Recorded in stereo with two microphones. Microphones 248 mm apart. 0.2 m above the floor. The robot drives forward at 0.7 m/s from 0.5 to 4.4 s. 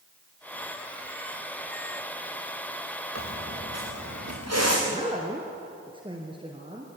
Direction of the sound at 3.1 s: 85° right.